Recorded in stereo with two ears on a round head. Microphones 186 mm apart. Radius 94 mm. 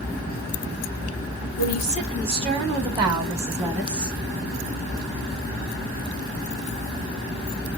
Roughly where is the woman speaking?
Right.